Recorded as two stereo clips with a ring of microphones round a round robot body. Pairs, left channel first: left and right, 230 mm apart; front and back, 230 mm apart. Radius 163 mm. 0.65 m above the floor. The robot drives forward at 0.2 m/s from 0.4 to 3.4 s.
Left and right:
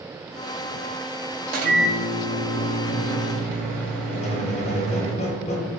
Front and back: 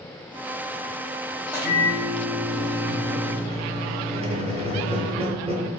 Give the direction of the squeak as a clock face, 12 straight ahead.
7 o'clock.